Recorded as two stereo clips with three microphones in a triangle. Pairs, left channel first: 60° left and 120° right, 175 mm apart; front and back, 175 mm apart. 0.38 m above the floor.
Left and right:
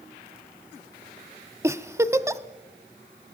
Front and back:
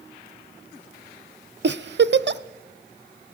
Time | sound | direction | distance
1.6 | a giggle | 165° left | 0.6 m